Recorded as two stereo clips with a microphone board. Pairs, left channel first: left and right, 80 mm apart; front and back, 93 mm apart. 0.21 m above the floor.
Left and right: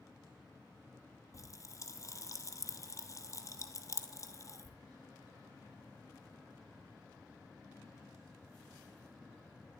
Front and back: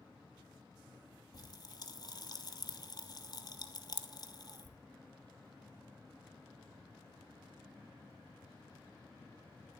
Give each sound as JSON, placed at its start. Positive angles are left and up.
{"t": 1.3, "sound": "a pop", "azimuth_deg": 40, "distance_m": 1.0}